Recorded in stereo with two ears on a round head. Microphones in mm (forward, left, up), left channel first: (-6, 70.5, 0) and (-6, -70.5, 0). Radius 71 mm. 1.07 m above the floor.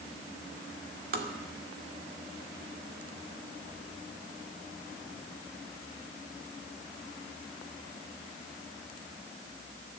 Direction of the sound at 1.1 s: 65° right (ahead or behind).